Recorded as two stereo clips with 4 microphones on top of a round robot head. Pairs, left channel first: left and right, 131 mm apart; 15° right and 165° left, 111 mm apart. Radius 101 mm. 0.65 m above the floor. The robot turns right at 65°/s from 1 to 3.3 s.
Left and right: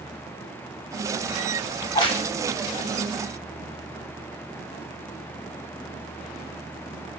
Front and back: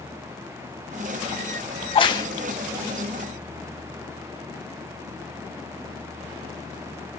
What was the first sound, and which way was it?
A crack, 15° left.